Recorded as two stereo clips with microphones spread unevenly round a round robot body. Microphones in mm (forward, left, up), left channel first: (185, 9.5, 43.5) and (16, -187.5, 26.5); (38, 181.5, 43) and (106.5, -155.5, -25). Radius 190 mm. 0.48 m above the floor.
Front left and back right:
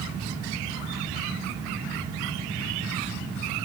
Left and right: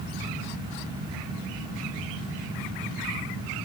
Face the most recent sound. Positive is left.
No sound to turn to.